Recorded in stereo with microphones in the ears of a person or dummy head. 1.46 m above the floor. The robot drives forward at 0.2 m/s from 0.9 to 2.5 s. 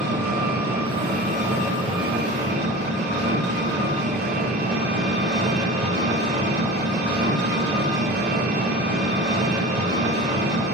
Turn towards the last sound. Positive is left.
turn(degrees=-50)  # may be behind; listen again after turning